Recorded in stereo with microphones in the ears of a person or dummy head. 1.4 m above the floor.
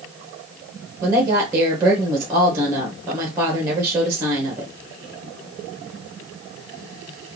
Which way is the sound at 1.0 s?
10° right (ahead or behind).